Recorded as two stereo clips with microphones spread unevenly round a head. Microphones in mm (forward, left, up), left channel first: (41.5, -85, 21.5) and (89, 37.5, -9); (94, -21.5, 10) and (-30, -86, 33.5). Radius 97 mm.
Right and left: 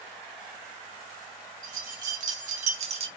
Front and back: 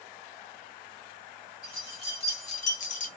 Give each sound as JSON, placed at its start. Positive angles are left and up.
{"t": 1.6, "sound": "keys jangling", "azimuth_deg": 90, "distance_m": 1.0}